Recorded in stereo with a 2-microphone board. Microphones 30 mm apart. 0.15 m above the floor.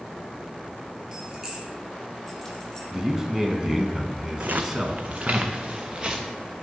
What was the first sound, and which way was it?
Keys jangling, 25° right (ahead or behind).